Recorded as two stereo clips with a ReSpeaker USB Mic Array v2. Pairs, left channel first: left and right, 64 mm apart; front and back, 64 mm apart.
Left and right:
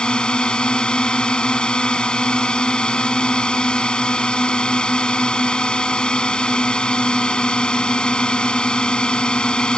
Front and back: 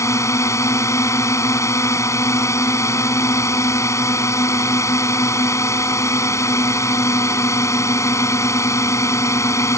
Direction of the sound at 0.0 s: 15° left.